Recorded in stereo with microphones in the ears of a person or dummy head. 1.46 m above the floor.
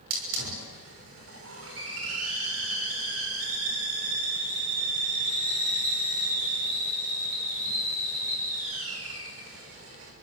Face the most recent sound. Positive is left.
turn(degrees=-75)  # may be behind; listen again after turning